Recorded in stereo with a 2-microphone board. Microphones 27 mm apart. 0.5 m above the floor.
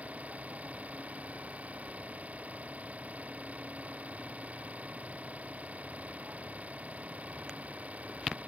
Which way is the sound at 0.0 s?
60° right (ahead or behind).